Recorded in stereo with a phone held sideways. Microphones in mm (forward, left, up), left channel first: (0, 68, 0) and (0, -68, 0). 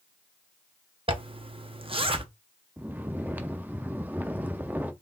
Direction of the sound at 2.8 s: 15° right (ahead or behind).